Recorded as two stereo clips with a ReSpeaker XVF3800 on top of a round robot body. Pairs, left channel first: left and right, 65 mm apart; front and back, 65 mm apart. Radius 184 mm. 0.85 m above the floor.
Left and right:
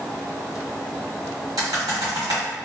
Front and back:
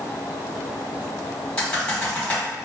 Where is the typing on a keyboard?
70° right, 1.5 m.